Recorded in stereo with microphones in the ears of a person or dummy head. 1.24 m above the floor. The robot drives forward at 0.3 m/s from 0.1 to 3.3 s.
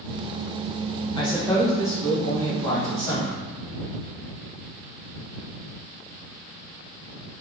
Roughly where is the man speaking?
Left.